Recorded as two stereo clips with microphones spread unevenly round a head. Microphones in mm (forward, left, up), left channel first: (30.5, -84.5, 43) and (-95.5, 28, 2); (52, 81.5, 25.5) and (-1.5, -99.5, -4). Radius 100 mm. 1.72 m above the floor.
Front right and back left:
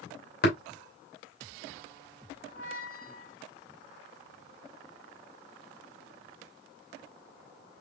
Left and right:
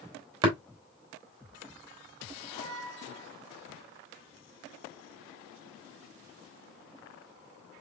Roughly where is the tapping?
Ahead right.